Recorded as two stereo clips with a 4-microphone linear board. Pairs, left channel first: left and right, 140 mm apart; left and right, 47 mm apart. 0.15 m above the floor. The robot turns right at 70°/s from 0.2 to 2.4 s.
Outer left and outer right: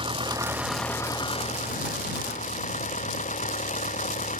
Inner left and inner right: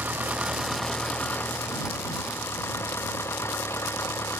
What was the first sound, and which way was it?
An engine running, 40° right.